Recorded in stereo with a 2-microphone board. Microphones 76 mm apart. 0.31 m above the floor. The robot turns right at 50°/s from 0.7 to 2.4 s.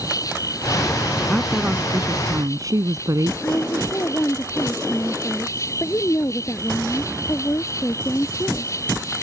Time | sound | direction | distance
0.0 | an insect | 50° left | ?
1.3 | a woman speaking | straight behind | ?
3.4 | a woman speaking | 40° left (ahead or behind) | ?